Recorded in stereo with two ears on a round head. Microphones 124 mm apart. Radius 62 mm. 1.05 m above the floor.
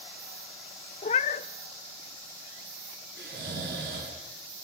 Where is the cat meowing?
45° left (ahead or behind), 0.5 m.